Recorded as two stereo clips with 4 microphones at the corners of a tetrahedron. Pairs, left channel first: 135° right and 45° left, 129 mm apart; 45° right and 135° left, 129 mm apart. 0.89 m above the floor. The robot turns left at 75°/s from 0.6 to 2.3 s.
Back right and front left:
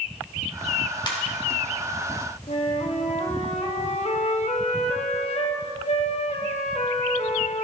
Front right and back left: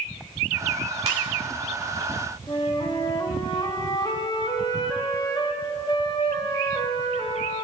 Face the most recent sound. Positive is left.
turn(degrees=-100)